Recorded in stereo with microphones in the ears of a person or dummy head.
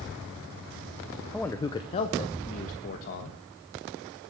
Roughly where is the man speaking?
Centre.